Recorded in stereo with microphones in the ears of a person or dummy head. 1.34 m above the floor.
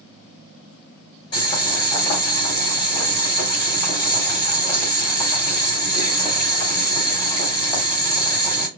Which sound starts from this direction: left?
Boiling, at 1.3 s.